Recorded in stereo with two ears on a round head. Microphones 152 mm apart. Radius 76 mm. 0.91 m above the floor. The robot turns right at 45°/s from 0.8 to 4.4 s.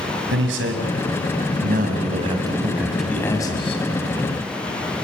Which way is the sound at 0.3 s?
95° right.